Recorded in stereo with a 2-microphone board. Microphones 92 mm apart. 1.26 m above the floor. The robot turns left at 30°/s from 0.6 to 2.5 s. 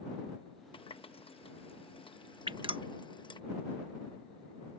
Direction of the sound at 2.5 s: 60° right (ahead or behind).